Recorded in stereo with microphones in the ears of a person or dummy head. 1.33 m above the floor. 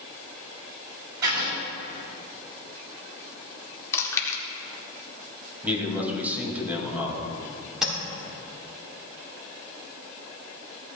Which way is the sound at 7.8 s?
5° right (ahead or behind).